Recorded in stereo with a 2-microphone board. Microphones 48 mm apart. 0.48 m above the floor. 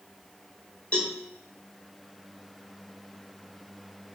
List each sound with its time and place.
0.9 s a cowbell: 25° left (ahead or behind), 2.5 m